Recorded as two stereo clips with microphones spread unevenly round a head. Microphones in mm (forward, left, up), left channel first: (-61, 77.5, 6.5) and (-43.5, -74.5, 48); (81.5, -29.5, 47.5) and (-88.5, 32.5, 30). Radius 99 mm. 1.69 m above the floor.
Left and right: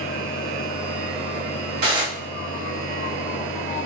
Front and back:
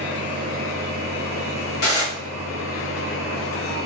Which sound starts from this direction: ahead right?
Dishes clattering, at 1.8 s.